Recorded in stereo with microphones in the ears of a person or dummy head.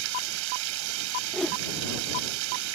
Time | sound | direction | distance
0.0 | running water | 80° right | ?
1.3 | a whoosh | 5° left (ahead or behind) | ?